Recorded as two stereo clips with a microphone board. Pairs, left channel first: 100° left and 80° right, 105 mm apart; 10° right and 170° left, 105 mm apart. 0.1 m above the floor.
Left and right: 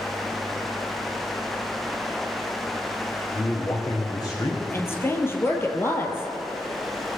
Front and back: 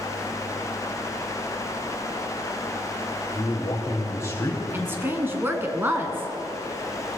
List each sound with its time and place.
3.3 s a man speaking: 50° left, 4 m
4.7 s a woman speaking: 130° left, 1.5 m